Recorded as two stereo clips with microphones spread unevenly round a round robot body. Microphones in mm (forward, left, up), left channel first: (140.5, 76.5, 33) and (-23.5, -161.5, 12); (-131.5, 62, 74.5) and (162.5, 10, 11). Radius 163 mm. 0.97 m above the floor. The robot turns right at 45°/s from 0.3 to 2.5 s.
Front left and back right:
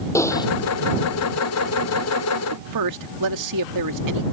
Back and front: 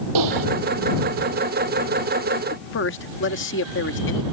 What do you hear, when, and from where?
0.1 s typing on a keyboard: 25° right; by 0.5 s 15° right
2.5 s a man speaking: 135° right